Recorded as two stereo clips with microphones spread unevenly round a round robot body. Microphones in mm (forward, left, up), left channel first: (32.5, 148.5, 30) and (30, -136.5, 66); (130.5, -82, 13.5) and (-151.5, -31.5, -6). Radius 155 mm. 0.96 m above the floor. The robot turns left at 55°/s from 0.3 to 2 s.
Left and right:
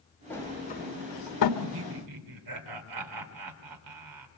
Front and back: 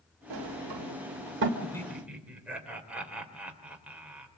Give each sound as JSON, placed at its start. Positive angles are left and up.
{"t": 0.3, "sound": "a sliding door", "azimuth_deg": 175, "distance_m": 1.8}
{"t": 1.6, "sound": "laughter", "azimuth_deg": -85, "distance_m": 3.5}